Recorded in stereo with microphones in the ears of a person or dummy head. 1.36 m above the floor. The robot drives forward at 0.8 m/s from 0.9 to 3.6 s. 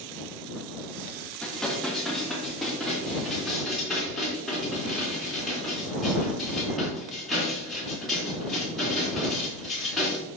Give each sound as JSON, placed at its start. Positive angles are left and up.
{"t": 1.4, "sound": "dishes clattering", "side_deg": 5, "distance_m": 1.4}